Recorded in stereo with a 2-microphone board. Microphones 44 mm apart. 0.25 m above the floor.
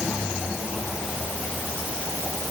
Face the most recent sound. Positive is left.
No sound to turn to.